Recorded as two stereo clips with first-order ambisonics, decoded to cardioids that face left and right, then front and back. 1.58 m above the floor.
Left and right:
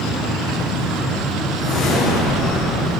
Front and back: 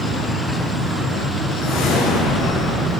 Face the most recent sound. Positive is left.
turn(degrees=45)